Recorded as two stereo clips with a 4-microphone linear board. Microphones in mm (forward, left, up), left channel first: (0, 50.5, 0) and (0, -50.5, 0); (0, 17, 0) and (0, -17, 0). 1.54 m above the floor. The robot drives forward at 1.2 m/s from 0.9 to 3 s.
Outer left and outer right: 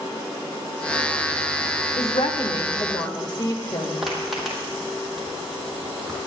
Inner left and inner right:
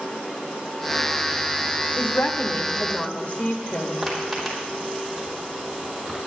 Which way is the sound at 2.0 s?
80° left.